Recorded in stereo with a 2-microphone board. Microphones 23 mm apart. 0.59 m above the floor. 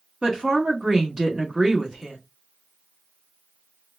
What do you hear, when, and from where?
0.2 s a woman speaking: 30° right (ahead or behind), 1.1 m